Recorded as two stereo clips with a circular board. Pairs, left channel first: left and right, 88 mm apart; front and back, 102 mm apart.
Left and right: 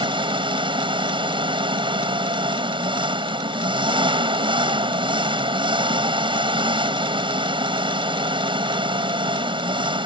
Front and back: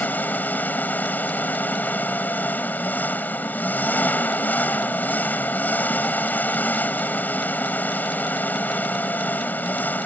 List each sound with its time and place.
0.0 s an engine running: 70° right